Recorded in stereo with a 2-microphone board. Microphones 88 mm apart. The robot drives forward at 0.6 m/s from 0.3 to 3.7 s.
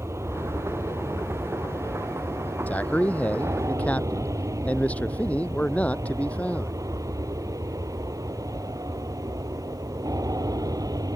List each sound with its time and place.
0.0 s an aircraft: 35° right (ahead or behind); by 11.2 s 45° right (ahead or behind)
2.7 s a man speaking: 20° left (ahead or behind); by 6.8 s 15° left (ahead or behind)